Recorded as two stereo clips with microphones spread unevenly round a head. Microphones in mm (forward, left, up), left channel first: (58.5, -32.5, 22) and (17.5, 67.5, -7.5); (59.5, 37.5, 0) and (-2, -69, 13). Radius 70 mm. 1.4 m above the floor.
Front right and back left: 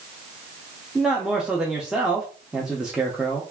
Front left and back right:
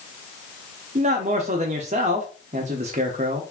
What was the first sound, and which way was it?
A man speaking, 155° right.